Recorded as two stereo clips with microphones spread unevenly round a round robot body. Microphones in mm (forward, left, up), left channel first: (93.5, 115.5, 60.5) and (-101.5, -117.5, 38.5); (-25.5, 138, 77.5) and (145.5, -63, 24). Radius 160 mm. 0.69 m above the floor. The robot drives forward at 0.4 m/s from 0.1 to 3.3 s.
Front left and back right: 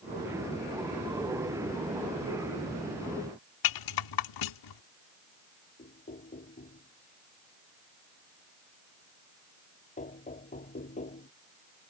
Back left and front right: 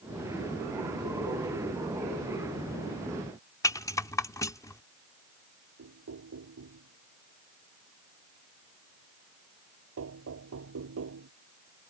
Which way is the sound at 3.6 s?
50° left.